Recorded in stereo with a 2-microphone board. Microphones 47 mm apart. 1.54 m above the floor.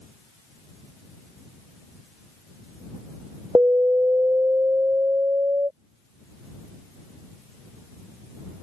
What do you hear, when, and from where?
3.5 s an alarm: 50° right (ahead or behind)